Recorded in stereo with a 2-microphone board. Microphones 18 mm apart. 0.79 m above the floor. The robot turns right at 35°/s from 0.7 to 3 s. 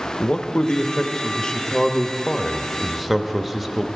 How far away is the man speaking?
About 0.8 m.